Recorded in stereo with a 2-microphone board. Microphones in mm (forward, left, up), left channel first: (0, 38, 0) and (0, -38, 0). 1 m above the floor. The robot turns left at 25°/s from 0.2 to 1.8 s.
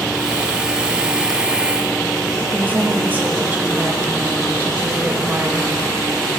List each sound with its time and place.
2.5 s a woman speaking: 25° right (ahead or behind), 1.4 m